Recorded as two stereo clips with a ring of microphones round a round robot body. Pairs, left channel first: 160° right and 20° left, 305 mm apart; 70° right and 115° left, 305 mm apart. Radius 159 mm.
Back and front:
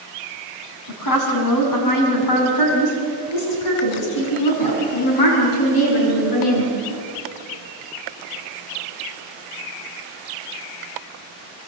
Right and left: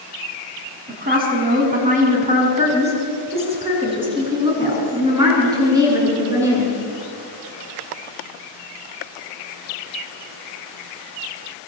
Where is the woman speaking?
175° left, 5 m; by 6.7 s 165° right, 8 m.